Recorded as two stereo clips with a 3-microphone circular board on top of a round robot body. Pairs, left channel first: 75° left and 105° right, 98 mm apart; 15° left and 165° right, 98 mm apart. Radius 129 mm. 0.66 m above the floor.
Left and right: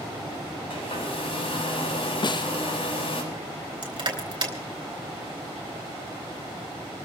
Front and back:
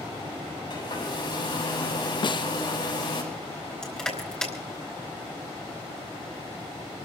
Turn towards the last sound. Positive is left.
turn(degrees=-65)